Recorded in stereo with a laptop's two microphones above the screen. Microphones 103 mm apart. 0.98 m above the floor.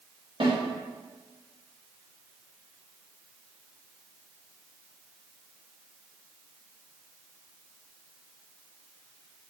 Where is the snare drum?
55° right (ahead or behind), 1.5 m.